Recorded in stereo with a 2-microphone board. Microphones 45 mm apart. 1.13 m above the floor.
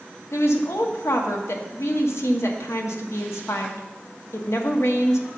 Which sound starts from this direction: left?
A woman speaking, at 0.3 s.